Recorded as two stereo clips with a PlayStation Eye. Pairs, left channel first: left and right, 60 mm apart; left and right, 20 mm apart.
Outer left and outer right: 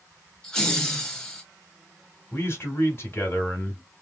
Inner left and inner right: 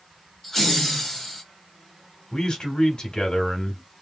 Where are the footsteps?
No footsteps in this recording.